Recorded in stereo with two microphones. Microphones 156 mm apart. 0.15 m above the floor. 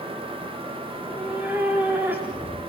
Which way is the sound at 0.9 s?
10° right (ahead or behind).